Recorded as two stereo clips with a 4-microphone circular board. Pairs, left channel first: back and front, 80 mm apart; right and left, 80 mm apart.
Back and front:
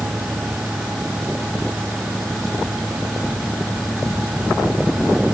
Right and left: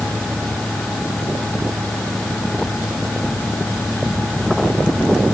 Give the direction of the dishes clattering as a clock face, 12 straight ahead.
I don't hear dishes clattering.